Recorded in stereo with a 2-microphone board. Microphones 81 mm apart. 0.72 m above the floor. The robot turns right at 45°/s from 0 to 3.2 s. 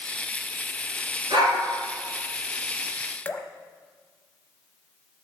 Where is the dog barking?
85° right, 3.5 m; by 1.6 s 75° right (ahead or behind), 3.5 m.